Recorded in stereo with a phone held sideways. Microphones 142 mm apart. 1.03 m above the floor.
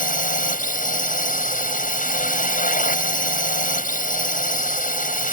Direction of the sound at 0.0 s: 75° left (ahead or behind).